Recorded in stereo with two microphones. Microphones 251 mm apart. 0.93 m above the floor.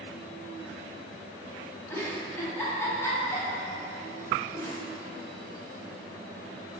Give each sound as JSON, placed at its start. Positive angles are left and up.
{"t": 1.9, "sound": "a giggle", "side_deg": 10, "distance_m": 0.8}